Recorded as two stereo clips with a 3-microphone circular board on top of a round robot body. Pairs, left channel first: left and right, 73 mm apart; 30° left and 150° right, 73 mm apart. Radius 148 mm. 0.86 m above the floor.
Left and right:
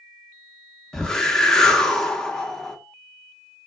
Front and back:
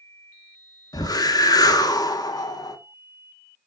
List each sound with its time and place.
0.9 s a whoosh: 10° left, 0.7 m